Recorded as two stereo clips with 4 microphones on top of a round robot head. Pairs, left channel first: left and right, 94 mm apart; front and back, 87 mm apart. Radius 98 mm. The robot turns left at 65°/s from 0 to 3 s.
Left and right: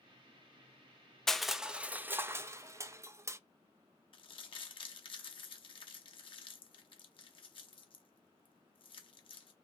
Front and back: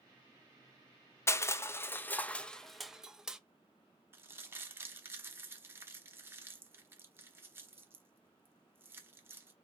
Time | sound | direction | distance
1.3 | crushing | 10° left | 0.5 m
4.1 | crumpling | 115° left | 1.1 m